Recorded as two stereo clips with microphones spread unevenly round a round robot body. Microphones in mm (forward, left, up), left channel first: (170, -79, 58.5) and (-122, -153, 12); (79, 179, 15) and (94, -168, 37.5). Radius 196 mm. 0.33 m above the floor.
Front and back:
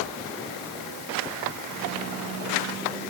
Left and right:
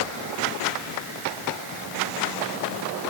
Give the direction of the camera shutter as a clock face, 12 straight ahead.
No camera shutter in this recording.